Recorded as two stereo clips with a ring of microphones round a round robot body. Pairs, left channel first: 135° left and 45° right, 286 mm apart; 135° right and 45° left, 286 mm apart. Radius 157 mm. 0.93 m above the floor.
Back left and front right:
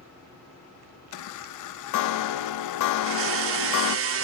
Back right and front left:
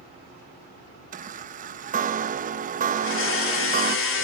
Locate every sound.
1.1 s a chime: 110° left, 0.6 m
3.0 s a blender: 90° right, 2.5 m